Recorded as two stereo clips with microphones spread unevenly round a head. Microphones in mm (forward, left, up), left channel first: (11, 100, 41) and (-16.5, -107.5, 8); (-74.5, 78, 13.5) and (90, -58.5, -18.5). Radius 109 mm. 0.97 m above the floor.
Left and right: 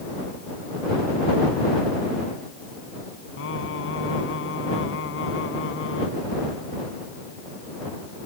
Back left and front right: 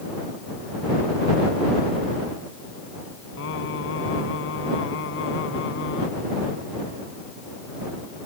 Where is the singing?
110° left.